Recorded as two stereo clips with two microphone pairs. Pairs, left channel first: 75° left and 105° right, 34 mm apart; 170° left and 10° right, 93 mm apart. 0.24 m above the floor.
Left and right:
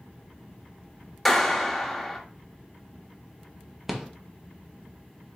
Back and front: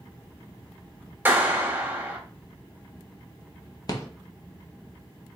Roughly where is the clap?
Ahead.